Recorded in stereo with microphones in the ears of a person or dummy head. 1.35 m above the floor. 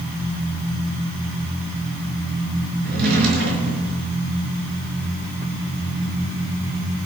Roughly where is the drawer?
Right.